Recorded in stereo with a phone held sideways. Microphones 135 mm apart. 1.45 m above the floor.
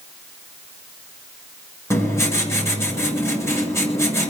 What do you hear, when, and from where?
1.9 s writing: 20° left (ahead or behind), 7 m